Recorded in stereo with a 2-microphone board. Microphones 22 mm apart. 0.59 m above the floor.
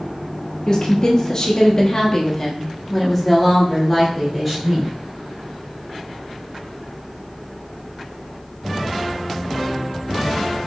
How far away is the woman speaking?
About 1.5 m.